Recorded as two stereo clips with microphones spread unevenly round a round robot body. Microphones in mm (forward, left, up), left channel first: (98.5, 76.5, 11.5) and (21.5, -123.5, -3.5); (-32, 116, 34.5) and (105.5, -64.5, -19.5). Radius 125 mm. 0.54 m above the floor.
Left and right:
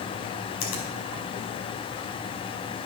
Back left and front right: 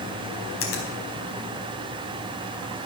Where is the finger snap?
90° left, 4.5 m.